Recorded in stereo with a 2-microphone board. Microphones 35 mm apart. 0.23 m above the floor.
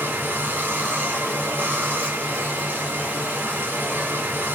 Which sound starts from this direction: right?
Running water, at 0.0 s.